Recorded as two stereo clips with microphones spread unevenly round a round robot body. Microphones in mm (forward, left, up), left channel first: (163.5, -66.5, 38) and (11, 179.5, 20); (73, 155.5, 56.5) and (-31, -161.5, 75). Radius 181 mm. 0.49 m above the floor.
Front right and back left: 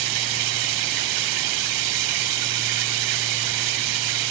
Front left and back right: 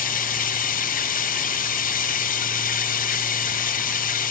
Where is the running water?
140° left, 1.5 m.